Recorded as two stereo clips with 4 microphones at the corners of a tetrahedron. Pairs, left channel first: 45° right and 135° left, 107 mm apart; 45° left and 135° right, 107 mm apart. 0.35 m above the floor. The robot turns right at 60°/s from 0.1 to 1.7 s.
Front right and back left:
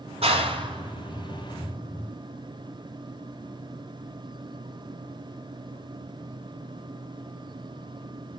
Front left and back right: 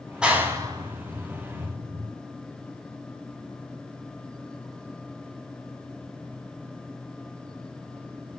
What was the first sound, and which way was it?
A clap, 145° left.